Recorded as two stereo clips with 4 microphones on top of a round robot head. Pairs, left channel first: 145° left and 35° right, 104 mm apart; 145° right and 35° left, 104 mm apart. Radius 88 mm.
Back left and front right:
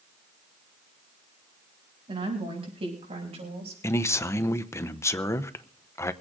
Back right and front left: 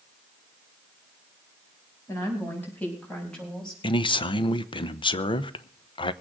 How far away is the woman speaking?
About 6.5 m.